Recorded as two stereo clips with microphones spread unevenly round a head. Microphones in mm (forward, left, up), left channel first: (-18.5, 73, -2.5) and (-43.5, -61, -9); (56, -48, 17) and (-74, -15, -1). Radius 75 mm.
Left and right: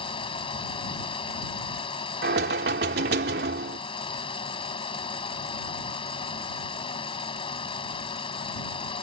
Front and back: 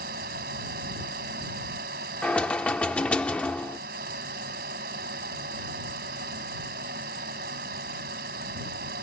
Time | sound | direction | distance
0.0 | a fan | 130° left | ?
2.2 | knocking | 95° right | ?